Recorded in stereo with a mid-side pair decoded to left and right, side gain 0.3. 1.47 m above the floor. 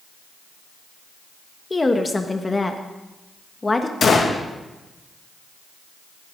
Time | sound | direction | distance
1.7 | a woman speaking | 30° left | 1.4 m
4.0 | a gunshot | 60° left | 2 m